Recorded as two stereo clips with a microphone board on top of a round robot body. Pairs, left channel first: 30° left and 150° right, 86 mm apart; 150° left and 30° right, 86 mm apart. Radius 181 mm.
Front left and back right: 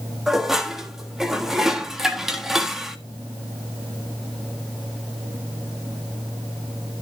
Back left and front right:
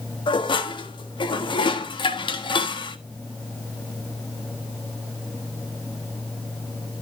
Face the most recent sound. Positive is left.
turn(degrees=125)